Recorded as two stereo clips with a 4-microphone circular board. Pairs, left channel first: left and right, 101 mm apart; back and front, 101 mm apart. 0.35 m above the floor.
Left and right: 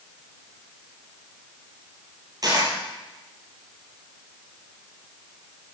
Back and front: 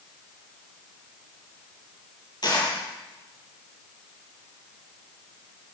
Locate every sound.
2.4 s a dropped coin: 140° right, 4.5 m